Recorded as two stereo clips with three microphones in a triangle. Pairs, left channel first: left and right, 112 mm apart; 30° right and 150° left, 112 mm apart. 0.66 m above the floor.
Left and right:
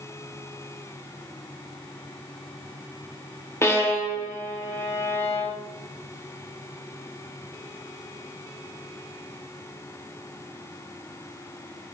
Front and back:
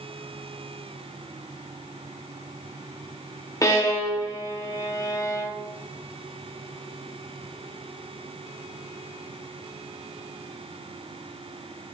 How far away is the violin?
About 2 m.